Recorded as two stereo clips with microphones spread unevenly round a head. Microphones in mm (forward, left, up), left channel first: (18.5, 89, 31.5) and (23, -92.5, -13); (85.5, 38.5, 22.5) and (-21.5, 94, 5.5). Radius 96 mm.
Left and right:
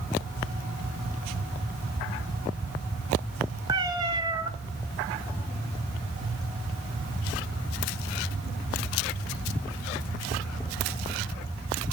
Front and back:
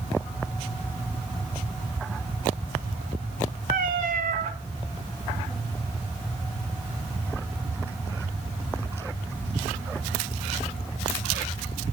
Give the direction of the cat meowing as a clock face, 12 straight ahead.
5 o'clock.